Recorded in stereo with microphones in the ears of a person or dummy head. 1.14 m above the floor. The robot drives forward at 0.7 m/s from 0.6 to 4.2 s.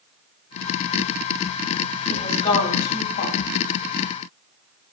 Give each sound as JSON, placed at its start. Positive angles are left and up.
{"t": 2.1, "sound": "a woman speaking", "side_deg": 45, "distance_m": 3.5}